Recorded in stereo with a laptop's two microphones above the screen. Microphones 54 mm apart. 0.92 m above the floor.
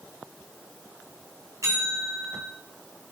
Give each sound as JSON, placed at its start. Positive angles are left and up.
{"t": 1.6, "sound": "a bell", "side_deg": -70, "distance_m": 2.5}